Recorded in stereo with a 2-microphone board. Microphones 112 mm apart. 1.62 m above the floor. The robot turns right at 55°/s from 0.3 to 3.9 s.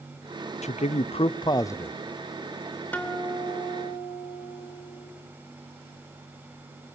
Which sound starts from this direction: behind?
A guitar, at 2.9 s.